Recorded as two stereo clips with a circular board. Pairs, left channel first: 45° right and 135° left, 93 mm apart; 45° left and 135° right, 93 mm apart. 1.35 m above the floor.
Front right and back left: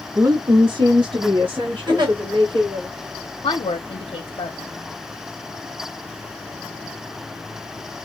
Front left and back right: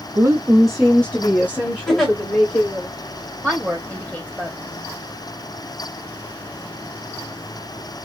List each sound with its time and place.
0.1 s a woman speaking: 175° right, 0.5 m; by 2.9 s 100° left, 2 m
1.9 s a giggle: 130° left, 1.6 m
3.4 s a woman speaking: 55° right, 0.7 m